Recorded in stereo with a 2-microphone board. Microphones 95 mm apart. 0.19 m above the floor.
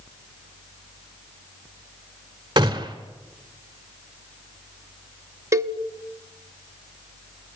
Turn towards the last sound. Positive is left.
turn(degrees=-35)  # may be behind; listen again after turning